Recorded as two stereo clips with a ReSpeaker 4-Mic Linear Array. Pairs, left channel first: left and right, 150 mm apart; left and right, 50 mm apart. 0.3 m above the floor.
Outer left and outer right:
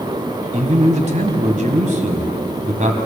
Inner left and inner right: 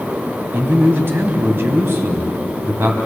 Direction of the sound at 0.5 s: 55° right (ahead or behind).